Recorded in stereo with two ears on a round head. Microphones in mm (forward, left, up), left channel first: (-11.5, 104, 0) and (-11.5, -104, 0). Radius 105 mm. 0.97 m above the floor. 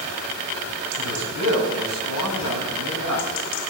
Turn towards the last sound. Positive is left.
turn(degrees=75)  # may be behind; listen again after turning